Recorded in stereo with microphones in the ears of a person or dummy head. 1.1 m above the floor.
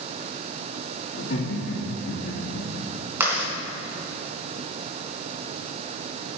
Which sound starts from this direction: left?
Laughter, at 1.1 s.